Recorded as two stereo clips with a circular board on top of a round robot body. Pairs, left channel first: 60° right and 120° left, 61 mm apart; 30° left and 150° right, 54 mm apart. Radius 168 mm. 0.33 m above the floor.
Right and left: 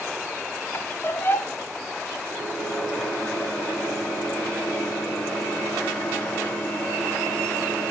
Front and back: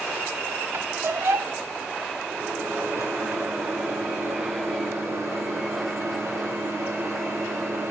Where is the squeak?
110° right, 0.5 m.